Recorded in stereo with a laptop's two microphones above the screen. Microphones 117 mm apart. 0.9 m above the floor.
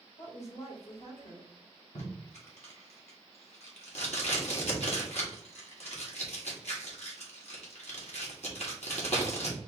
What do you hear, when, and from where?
0.2 s a woman speaking: 75° left (ahead or behind), 2 m
1.9 s tape being pulled: 70° left (ahead or behind), 1.5 m